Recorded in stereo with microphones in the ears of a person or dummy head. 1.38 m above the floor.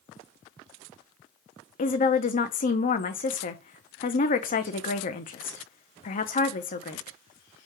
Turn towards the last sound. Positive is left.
turn(degrees=40)  # may be behind; listen again after turning